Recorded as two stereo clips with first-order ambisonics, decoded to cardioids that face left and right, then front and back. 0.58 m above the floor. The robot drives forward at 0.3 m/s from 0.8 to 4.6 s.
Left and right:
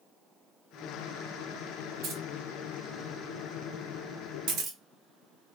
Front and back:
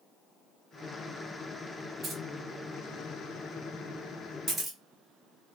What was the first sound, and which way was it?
Keys jangling, 120° right.